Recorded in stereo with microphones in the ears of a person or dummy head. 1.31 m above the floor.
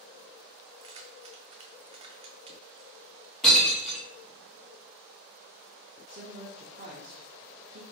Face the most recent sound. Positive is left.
turn(degrees=-40)  # may be behind; listen again after turning